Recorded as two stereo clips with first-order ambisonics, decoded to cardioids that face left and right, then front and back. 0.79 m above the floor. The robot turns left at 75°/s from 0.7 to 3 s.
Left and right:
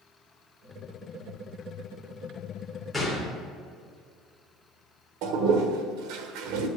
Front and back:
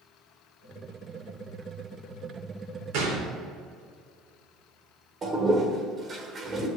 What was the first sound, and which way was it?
A gunshot, 175° right.